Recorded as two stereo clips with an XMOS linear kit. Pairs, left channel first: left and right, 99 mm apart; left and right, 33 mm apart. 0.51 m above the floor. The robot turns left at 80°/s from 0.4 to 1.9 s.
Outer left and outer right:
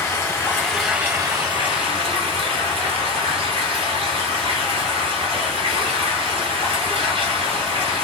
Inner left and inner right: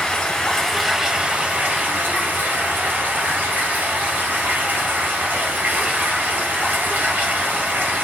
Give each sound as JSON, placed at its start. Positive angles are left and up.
{"t": 0.0, "sound": "running water", "azimuth_deg": 35, "distance_m": 1.2}